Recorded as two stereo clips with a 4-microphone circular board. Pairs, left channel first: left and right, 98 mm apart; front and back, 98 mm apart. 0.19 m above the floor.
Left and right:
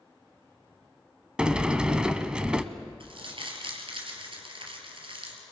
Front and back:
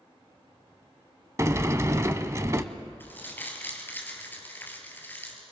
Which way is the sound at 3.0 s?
70° right.